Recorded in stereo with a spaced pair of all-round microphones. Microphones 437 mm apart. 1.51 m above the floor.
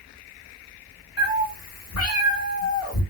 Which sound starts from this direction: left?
A cat meowing, at 1.2 s.